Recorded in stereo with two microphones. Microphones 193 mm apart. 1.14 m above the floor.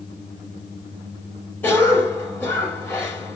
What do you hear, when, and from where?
1.6 s a cough: 10° left (ahead or behind), 6 m